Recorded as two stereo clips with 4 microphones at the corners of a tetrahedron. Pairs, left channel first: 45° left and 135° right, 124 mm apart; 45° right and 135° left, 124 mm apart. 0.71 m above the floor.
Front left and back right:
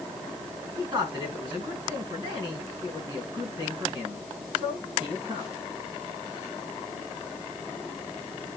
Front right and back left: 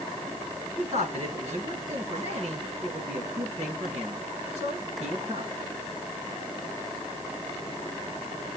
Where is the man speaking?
170° left, 7.5 m.